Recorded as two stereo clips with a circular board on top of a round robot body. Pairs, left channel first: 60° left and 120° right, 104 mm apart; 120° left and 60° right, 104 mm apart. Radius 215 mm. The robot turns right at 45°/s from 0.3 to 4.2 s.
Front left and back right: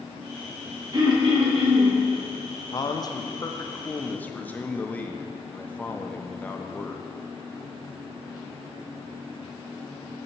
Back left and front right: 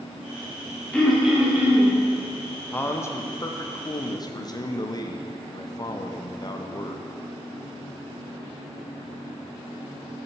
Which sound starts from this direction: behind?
Throat clearing, at 0.9 s.